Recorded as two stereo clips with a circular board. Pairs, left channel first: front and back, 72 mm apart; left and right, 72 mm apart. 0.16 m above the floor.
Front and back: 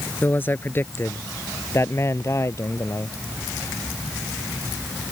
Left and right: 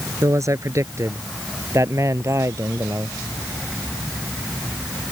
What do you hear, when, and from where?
0.2 s a man speaking: 55° right; by 3.2 s 45° right